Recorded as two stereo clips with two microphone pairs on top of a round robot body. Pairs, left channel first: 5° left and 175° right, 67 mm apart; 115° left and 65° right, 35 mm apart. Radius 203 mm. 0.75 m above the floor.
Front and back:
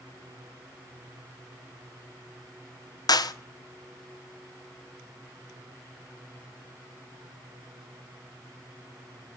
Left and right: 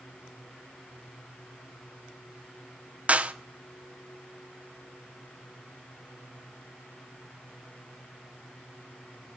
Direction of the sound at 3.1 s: 15° right.